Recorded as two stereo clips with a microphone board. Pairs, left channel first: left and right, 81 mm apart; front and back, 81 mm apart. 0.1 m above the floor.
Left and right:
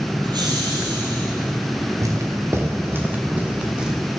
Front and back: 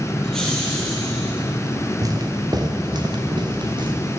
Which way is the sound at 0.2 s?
85° right.